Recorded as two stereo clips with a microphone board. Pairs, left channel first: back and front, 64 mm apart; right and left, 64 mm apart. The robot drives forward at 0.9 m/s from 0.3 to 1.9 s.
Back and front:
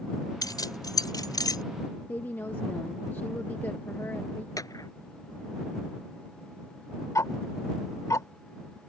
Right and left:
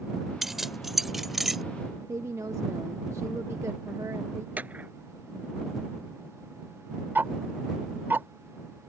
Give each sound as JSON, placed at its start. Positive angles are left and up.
{"t": 0.4, "sound": "keys jangling", "azimuth_deg": 175}
{"t": 2.1, "sound": "a woman speaking", "azimuth_deg": 125}
{"t": 4.6, "sound": "a clap", "azimuth_deg": 155}
{"t": 7.2, "sound": "ticking", "azimuth_deg": 150}